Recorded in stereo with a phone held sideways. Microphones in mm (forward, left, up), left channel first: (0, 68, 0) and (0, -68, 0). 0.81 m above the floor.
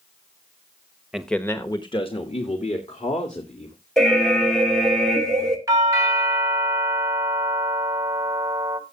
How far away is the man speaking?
About 0.9 m.